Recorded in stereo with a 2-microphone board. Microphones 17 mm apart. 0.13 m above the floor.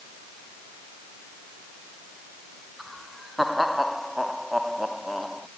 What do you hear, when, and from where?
2.8 s laughter: 5° right (ahead or behind); by 5.5 s centre (ahead or behind)